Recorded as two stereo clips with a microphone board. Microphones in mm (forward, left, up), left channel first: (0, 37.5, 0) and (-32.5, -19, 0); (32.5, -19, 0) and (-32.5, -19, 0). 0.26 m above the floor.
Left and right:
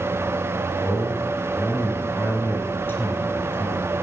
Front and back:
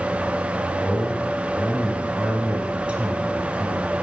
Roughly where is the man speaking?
Left.